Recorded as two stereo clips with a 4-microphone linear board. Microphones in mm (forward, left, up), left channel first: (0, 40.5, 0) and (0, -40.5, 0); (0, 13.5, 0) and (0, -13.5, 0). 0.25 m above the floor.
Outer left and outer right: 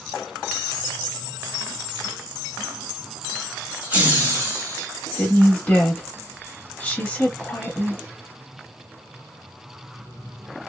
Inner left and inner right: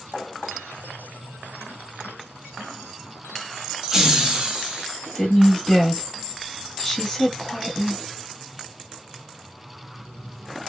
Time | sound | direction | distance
3.8 | laughter | 15° right (ahead or behind) | 1.0 m
5.2 | a woman speaking | 20° left (ahead or behind) | 1.1 m